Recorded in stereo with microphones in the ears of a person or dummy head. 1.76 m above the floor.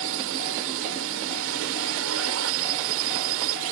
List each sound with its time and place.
0.0 s a drone: 75° right (ahead or behind)